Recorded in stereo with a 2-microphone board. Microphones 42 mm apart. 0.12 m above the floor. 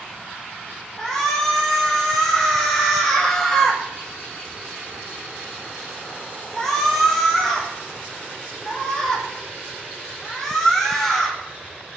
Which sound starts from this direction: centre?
A shout, at 1.0 s.